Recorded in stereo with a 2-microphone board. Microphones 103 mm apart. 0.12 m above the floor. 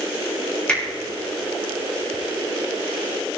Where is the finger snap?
10° left (ahead or behind), 5 m.